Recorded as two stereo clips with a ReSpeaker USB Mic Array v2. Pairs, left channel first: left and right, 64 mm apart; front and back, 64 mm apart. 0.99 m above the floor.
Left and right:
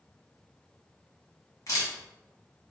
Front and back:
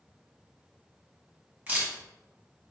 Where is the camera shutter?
115° left, 1.5 m.